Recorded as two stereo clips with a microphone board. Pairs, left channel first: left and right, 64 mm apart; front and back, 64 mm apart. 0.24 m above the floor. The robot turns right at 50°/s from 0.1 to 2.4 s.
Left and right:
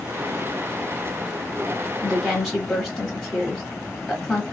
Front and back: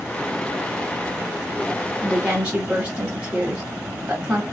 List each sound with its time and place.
2.0 s a woman speaking: 145° left, 0.9 m; by 4.4 s 165° left, 0.9 m